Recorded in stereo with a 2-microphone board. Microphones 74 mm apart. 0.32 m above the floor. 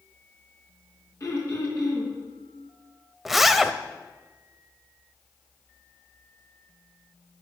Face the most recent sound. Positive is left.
turn(degrees=-5)  # may be behind; listen again after turning